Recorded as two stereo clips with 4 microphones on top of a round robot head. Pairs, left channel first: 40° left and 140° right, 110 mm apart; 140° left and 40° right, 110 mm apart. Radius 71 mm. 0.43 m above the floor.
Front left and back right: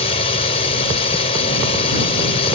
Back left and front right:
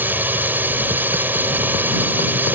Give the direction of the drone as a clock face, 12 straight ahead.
11 o'clock.